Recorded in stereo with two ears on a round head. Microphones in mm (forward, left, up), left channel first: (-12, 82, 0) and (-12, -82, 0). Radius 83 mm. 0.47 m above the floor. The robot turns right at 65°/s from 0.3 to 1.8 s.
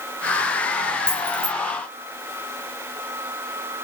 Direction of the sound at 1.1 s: 5° left (ahead or behind).